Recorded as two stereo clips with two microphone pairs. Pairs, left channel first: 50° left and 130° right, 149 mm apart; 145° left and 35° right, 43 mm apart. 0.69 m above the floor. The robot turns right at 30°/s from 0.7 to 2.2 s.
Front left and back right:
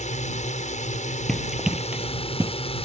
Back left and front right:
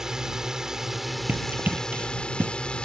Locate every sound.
0.0 s a drone: 40° left; by 2.9 s 85° left
1.3 s running footsteps: 35° right; by 2.5 s 60° right